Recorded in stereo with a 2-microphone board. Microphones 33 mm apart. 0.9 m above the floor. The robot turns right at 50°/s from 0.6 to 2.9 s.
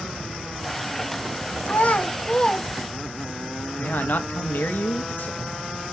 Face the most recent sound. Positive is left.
turn(degrees=65)  # may be behind; listen again after turning